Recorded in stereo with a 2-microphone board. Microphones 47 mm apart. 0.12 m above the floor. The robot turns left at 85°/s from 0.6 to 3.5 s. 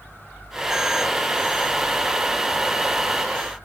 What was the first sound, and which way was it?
Only background noise.